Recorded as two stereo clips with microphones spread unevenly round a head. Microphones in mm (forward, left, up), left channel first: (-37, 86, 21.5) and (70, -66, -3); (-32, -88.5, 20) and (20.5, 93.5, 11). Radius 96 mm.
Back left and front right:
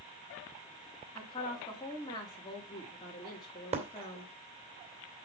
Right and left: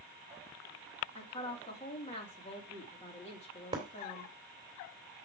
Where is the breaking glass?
5° left, 2.5 m.